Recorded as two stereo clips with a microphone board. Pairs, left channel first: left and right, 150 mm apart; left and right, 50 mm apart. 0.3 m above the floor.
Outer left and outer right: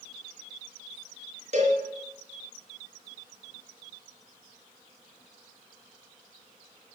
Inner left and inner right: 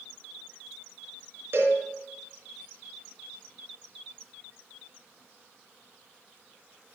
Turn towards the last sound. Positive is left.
turn(degrees=-55)  # may be behind; listen again after turning